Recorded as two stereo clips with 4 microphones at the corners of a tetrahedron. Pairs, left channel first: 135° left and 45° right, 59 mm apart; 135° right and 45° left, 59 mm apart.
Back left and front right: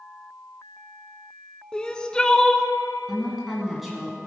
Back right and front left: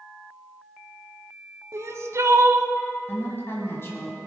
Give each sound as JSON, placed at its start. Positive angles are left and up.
{"t": 1.7, "sound": "crying", "azimuth_deg": 60, "distance_m": 0.6}
{"t": 3.1, "sound": "a woman speaking", "azimuth_deg": -135, "distance_m": 1.7}